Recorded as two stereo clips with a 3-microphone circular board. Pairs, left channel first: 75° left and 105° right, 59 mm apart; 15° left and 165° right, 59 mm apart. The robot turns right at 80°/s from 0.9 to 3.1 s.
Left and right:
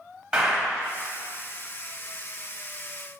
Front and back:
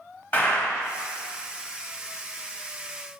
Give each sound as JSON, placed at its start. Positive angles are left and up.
{"t": 0.3, "sound": "a clap", "azimuth_deg": -30, "distance_m": 1.6}